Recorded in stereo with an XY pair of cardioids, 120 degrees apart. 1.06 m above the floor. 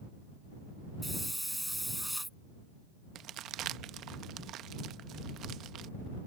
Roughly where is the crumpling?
Ahead right.